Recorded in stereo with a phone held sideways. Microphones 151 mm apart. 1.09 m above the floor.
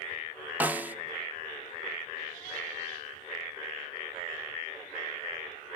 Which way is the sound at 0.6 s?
10° right (ahead or behind).